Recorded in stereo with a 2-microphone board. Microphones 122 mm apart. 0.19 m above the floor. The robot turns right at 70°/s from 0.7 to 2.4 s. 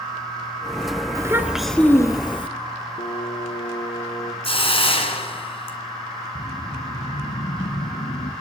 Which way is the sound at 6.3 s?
70° left (ahead or behind).